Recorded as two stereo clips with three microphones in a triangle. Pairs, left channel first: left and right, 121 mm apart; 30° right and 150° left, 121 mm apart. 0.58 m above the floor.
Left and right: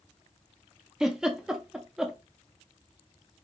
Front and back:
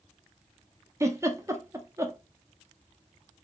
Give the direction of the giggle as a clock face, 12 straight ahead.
6 o'clock.